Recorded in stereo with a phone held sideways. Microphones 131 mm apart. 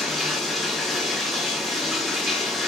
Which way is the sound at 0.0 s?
Centre (ahead or behind).